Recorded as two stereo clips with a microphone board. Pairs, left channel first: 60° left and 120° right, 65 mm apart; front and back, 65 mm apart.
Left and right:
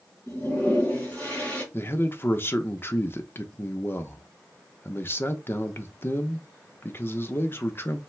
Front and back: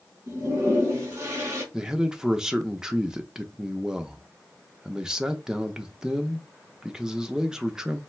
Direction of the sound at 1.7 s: 105° left.